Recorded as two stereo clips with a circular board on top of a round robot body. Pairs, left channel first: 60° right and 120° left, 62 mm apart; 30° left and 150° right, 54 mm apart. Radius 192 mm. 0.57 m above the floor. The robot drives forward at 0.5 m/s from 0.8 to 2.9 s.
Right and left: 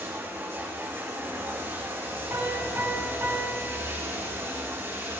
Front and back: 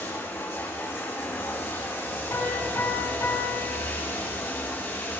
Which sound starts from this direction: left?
Running water, at 0.0 s.